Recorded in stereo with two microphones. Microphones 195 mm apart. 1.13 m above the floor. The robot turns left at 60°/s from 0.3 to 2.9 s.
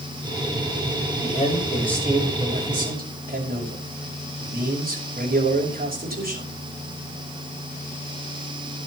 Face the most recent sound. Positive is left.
turn(degrees=-55)